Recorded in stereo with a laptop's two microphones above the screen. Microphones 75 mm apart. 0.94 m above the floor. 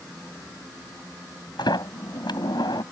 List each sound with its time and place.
1.6 s a sliding door: 75° left (ahead or behind)